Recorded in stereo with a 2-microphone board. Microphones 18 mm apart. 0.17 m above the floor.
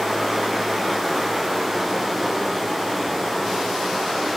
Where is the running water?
5° left (ahead or behind), 6.5 m.